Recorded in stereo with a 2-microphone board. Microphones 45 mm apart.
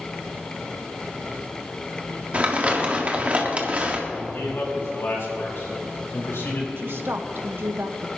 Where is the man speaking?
70° left (ahead or behind), 4.5 m.